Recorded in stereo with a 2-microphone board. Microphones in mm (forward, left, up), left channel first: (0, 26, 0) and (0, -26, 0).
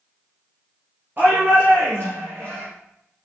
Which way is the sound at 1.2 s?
40° right (ahead or behind).